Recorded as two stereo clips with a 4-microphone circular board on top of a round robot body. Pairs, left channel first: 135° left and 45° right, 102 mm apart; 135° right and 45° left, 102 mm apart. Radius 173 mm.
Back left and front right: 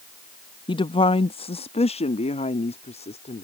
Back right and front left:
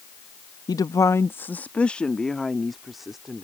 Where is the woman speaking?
175° left; by 3.4 s 130° left.